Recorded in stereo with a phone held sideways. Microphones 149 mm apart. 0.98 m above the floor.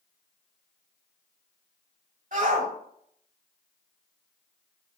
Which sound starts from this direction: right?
A shout, at 2.3 s.